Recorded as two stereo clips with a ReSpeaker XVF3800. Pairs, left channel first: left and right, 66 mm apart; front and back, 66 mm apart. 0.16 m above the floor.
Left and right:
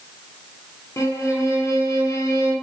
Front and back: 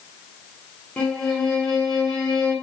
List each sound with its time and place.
1.0 s a violin: 75° left, 0.9 m